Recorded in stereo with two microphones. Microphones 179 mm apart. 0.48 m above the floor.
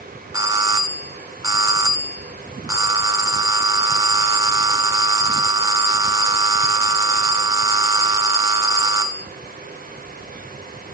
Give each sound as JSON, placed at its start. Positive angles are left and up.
{"t": 0.3, "sound": "a doorbell", "side_deg": -20, "distance_m": 1.1}